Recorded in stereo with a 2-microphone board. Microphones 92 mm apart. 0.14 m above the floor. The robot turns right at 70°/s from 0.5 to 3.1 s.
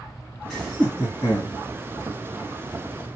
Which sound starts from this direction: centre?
Laughter, at 0.5 s.